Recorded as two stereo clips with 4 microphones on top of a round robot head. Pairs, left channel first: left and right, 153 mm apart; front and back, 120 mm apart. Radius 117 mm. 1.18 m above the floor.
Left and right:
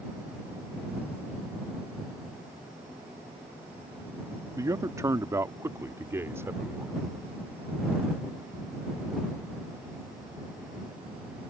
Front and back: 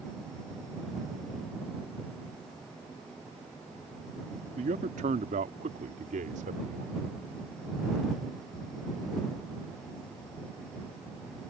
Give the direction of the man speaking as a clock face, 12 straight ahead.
5 o'clock.